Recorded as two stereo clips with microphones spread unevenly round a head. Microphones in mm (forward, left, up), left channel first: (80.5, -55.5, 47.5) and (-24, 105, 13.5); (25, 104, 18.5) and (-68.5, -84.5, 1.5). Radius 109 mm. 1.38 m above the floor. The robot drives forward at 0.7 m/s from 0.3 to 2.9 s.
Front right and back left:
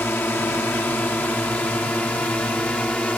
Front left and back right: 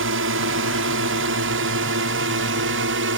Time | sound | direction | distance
0.0 | a drone | 140° right | ?